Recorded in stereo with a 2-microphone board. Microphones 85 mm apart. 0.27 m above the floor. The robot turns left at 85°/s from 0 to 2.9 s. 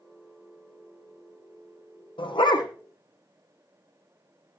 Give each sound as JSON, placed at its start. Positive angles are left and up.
{"t": 2.2, "sound": "a dog barking", "azimuth_deg": 85, "distance_m": 3.0}